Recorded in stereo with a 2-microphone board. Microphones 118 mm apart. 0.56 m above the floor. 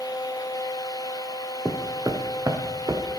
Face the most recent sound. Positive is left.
turn(degrees=-35)  # may be behind; listen again after turning